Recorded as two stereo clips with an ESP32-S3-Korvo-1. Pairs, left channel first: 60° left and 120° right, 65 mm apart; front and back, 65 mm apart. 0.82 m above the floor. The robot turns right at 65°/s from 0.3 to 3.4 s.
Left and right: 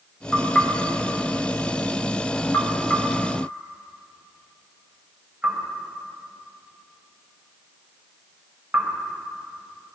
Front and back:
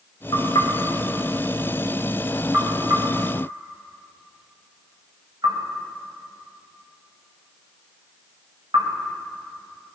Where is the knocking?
30° right, 3.5 m; by 8.9 s 170° left, 3.5 m.